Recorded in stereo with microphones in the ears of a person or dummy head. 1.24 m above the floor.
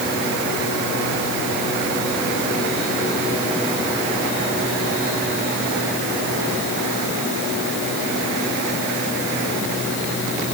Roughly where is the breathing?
No breathing in this recording.